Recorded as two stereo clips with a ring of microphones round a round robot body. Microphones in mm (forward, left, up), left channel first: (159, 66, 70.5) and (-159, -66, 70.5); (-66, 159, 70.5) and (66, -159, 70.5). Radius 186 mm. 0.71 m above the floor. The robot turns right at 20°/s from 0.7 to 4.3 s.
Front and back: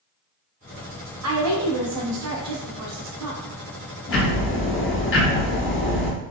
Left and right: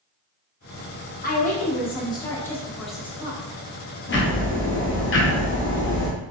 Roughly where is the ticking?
Ahead left.